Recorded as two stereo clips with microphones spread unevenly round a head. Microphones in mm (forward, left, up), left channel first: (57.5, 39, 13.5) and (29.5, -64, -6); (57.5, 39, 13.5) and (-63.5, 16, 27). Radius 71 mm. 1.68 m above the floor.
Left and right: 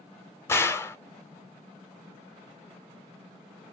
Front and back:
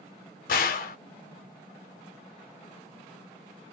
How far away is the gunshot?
About 0.7 m.